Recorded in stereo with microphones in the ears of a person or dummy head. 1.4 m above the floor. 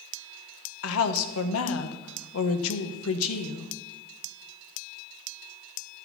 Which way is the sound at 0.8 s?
80° left.